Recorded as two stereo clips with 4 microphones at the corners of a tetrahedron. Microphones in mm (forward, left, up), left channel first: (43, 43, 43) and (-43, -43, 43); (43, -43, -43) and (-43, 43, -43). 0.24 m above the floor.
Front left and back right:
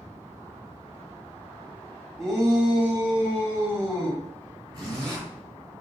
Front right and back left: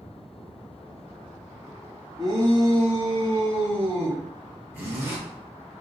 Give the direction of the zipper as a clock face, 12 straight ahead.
5 o'clock.